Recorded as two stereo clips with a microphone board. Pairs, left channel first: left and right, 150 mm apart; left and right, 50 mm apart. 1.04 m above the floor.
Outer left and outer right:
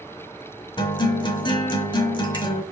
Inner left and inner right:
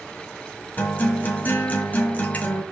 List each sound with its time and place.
0.8 s a guitar: 30° left (ahead or behind), 1.6 m